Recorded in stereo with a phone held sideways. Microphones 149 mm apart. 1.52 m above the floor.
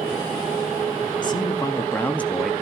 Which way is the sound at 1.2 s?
30° left (ahead or behind).